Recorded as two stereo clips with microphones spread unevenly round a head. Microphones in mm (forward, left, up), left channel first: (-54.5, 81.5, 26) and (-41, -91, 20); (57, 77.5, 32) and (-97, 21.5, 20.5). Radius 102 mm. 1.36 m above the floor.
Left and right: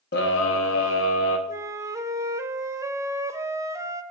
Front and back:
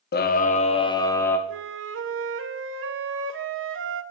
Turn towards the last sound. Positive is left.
turn(degrees=-160)